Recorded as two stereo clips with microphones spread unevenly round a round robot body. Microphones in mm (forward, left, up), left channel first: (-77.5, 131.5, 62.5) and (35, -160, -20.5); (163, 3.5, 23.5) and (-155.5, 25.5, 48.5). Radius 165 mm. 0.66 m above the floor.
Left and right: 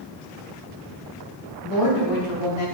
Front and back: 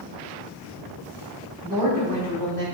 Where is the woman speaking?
140° left, 3.5 m.